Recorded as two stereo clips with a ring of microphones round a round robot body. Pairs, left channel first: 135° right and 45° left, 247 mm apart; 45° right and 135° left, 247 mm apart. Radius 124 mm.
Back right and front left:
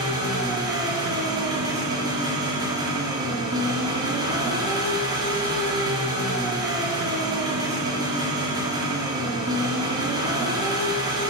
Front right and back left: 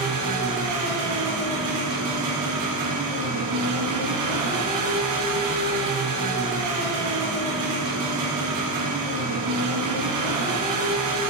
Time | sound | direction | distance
0.0 | an engine running | 120° left | 3.5 m